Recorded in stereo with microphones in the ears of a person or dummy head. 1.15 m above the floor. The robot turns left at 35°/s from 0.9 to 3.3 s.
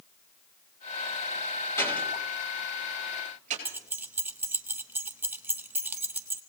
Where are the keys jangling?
10° right (ahead or behind), 0.6 m.